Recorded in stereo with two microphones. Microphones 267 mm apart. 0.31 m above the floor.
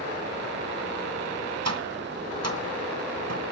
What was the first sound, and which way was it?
Tapping, 65° right (ahead or behind).